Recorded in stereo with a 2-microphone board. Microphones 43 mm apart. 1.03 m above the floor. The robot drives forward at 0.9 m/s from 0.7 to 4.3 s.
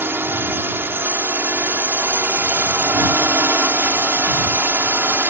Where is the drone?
60° right (ahead or behind).